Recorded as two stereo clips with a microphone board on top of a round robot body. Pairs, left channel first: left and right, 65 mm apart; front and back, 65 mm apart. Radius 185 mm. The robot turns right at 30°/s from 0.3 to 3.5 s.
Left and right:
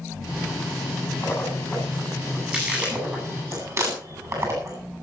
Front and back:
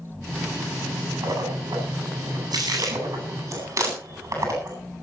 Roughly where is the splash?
Behind left.